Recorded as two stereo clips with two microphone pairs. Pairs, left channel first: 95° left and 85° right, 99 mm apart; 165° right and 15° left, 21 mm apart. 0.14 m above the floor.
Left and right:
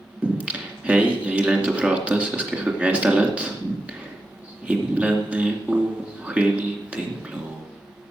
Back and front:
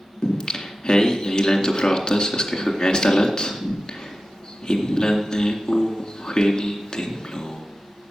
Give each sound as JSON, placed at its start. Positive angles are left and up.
{"t": 0.2, "sound": "singing", "azimuth_deg": -155, "distance_m": 2.0}